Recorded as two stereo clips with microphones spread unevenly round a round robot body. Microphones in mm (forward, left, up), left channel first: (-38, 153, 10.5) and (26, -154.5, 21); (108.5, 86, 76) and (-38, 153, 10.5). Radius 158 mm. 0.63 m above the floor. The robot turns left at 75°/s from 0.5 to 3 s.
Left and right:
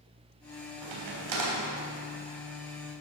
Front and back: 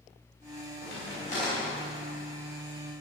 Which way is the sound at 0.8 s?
55° right.